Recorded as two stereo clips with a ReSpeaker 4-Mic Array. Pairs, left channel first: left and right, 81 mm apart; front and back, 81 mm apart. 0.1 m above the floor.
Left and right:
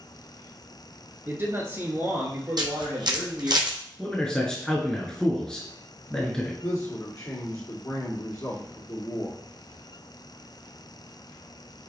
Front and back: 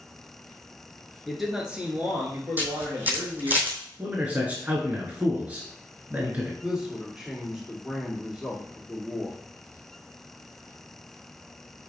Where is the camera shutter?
115° right, 1.2 m.